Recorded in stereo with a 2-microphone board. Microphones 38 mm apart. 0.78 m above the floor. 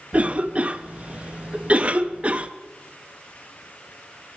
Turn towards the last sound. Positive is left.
turn(degrees=-35)  # may be behind; listen again after turning